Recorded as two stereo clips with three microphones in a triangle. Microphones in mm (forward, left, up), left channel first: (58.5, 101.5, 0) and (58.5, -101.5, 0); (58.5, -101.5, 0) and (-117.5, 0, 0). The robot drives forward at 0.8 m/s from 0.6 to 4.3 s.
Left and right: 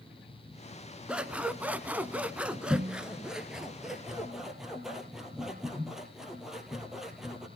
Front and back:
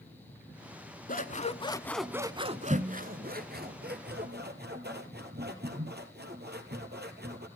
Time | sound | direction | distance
1.1 | scissors | 5° right | 0.9 m